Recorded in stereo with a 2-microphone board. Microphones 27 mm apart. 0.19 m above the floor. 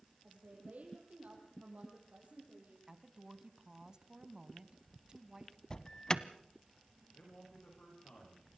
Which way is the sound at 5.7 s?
30° left (ahead or behind).